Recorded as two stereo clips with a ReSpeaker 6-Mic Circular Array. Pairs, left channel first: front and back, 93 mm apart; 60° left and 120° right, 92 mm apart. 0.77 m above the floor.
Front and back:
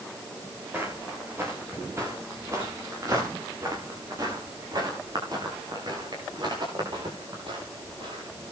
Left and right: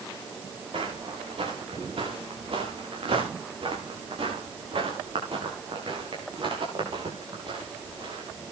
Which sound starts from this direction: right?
Footsteps, at 0.7 s.